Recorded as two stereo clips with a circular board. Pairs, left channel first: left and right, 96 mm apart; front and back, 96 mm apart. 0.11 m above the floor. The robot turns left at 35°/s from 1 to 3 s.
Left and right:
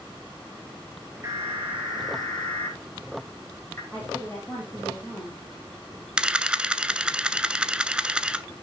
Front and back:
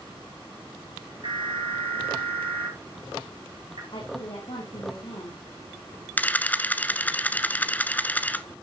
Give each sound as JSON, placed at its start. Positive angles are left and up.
{"t": 1.2, "sound": "an alarm", "azimuth_deg": -145, "distance_m": 5.5}
{"t": 3.9, "sound": "a woman speaking", "azimuth_deg": 20, "distance_m": 4.0}
{"t": 6.2, "sound": "a camera shutter", "azimuth_deg": -30, "distance_m": 0.7}